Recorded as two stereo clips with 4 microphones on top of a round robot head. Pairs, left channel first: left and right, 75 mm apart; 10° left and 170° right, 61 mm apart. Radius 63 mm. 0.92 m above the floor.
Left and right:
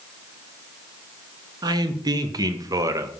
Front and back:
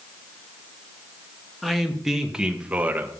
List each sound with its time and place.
1.6 s a man speaking: 75° right, 1.3 m; by 3.1 s 120° right, 0.9 m